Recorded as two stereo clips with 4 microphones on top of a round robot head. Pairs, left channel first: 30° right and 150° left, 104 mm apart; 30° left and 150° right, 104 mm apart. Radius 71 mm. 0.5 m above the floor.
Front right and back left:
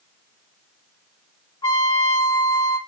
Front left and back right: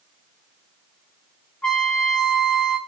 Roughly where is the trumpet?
Ahead right.